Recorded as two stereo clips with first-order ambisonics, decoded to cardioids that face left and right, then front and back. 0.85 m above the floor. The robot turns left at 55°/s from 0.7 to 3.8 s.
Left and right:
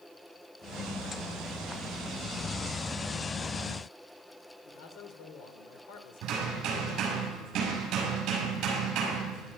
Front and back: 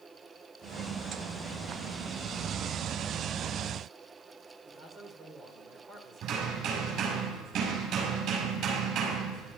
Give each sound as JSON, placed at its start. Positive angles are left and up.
{"t": 4.7, "sound": "a man speaking", "azimuth_deg": 110, "distance_m": 2.5}
{"t": 6.2, "sound": "hammering", "azimuth_deg": -140, "distance_m": 6.0}